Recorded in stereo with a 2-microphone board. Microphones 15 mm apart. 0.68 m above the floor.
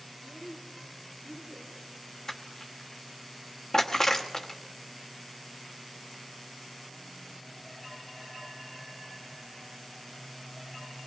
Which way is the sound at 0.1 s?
55° right (ahead or behind).